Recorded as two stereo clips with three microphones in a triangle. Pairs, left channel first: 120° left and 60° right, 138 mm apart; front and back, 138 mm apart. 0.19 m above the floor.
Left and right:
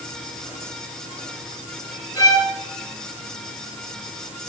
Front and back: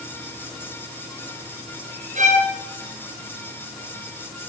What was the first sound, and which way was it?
A violin, 175° right.